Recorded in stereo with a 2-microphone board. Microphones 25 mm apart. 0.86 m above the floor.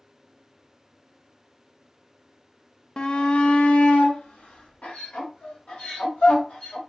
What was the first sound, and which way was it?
A shout, 35° left (ahead or behind).